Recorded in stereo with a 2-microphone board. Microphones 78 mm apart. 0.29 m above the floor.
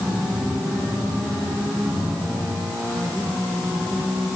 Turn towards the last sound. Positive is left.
No sound to turn to.